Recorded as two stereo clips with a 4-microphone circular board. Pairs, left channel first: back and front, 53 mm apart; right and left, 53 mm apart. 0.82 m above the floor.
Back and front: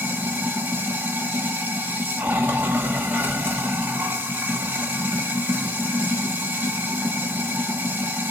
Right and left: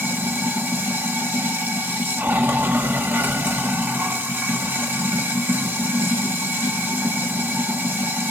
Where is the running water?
45° left, 1.0 m.